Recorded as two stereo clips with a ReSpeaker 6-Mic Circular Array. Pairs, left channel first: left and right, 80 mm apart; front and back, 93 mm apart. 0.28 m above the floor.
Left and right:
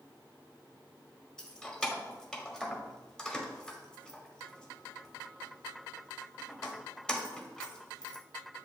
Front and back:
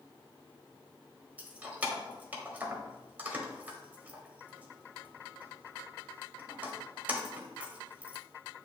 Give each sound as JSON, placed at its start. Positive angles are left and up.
{"t": 1.4, "sound": "keys jangling", "azimuth_deg": 150, "distance_m": 0.7}